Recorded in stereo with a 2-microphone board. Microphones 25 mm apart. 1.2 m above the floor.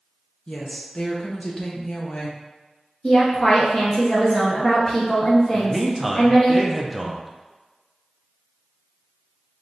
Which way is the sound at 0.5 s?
40° left (ahead or behind).